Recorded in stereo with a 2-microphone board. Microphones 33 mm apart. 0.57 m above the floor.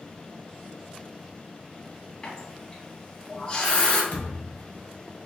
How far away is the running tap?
About 1.9 m.